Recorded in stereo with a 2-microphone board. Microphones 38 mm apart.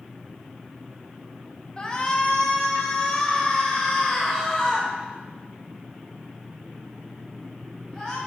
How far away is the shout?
About 1.3 m.